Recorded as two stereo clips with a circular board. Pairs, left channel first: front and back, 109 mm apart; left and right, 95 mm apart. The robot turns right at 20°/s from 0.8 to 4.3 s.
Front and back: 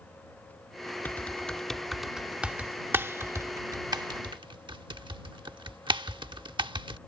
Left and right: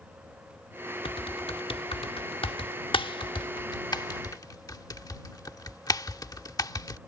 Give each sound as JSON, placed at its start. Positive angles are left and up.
{"t": 1.1, "sound": "typing on a keyboard", "azimuth_deg": 70}